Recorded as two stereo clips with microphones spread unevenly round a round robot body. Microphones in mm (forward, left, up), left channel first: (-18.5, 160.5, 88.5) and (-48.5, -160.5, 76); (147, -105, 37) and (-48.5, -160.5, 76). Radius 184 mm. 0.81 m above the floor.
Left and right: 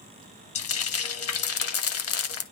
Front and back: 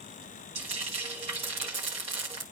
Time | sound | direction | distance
0.6 | frying | 130° left | 1.4 m